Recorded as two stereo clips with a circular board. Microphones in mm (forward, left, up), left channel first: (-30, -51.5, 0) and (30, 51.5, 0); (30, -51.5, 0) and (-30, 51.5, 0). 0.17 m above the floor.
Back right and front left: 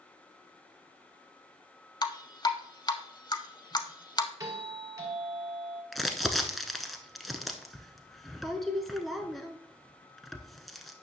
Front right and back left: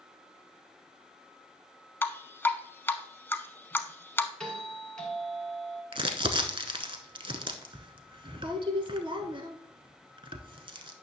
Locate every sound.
2.0 s dripping: 120° right, 0.6 m
4.4 s a doorbell: 20° left, 1.8 m
5.9 s crumpling: 150° left, 0.8 m